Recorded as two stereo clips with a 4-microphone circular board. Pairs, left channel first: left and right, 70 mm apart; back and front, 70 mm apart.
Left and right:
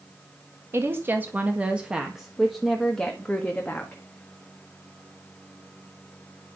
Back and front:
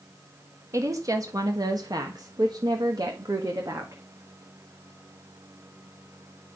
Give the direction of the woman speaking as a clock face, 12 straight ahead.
1 o'clock.